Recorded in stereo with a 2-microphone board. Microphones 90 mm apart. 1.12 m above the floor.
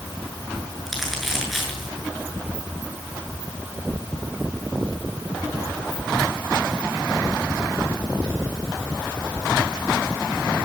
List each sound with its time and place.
0.9 s crumpling: centre (ahead or behind), 8.5 m